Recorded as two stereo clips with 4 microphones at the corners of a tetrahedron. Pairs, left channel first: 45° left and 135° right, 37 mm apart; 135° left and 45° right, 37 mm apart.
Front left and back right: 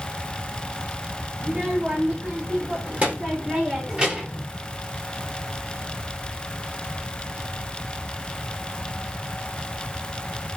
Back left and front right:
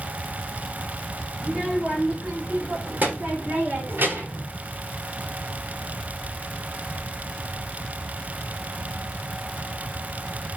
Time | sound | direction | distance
1.4 | a child speaking | 100° right | 5 m